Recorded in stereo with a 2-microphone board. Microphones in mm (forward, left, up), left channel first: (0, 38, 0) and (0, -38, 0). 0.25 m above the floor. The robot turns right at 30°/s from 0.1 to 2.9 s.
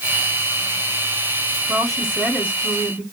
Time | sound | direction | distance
1.7 | a woman speaking | 50° right | 2.5 m